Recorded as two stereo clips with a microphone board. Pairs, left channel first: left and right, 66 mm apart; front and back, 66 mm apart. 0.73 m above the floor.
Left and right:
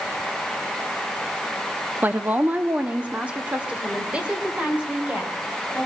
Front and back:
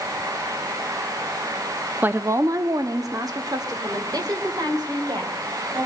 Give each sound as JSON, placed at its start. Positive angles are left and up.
{"t": 2.0, "sound": "a woman speaking", "azimuth_deg": -135, "distance_m": 0.6}